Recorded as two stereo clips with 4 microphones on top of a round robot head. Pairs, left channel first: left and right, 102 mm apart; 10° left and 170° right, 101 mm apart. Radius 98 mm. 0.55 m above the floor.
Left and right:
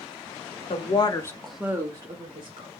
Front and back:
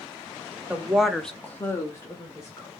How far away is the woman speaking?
About 1.3 m.